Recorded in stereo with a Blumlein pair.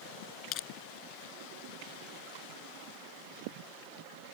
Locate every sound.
0.5 s crushing: 35° left